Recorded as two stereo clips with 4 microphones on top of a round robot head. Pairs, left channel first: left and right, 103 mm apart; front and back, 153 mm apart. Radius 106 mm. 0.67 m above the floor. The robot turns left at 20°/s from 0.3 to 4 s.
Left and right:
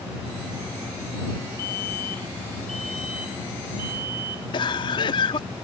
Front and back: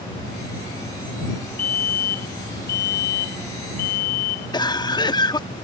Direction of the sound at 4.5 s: 55° left.